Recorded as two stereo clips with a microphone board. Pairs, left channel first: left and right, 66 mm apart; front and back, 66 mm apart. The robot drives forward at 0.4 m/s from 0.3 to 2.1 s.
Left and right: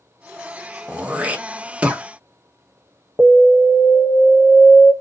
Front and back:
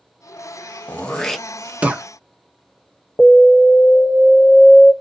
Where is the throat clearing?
40° right, 0.5 m; by 2.0 s 145° right, 0.5 m.